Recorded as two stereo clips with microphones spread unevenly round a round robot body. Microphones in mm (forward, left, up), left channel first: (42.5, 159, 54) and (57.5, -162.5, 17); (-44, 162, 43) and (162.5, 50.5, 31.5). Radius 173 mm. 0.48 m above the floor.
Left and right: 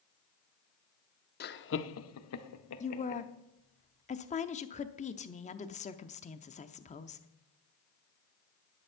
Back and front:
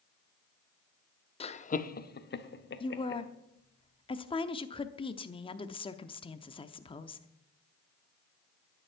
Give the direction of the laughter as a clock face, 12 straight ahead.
8 o'clock.